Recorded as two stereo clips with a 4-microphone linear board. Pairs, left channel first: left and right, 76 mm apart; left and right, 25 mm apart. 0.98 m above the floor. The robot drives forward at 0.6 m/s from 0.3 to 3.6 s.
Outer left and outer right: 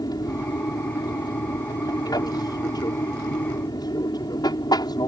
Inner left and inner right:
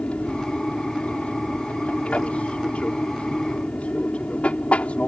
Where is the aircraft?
55° left (ahead or behind); by 5.1 s 60° left (ahead or behind).